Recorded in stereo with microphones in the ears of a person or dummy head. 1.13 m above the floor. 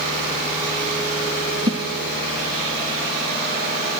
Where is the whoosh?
30° right (ahead or behind), 0.7 m.